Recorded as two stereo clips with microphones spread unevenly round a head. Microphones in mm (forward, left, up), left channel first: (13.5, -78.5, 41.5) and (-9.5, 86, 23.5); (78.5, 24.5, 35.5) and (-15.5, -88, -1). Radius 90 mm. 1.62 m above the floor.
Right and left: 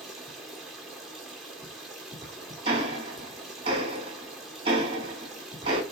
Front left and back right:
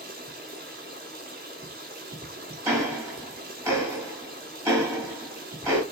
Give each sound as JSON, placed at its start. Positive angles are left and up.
{"t": 0.0, "sound": "running water", "azimuth_deg": -165, "distance_m": 1.7}
{"t": 2.6, "sound": "ticking", "azimuth_deg": 145, "distance_m": 1.5}